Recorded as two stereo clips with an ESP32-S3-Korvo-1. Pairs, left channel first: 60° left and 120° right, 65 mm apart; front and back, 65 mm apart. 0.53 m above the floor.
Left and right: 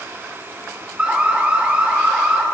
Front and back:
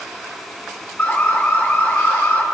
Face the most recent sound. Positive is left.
turn(degrees=-55)